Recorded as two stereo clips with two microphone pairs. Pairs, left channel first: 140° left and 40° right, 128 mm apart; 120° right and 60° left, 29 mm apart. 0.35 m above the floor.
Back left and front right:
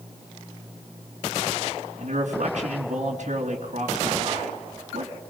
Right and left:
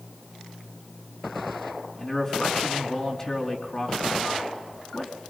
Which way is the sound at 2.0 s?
60° right.